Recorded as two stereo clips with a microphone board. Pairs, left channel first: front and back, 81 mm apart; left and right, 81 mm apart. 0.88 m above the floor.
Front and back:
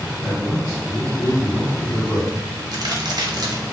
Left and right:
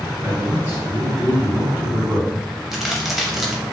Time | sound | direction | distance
0.2 | a man speaking | 25° right | 2.0 m
2.7 | a crack | straight behind | 0.7 m